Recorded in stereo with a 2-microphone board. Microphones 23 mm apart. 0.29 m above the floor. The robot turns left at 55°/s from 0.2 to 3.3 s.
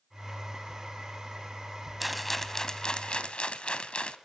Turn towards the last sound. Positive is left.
turn(degrees=115)